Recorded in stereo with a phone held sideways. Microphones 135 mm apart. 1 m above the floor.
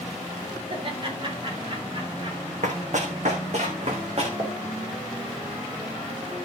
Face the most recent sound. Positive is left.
turn(degrees=-35)  # may be behind; listen again after turning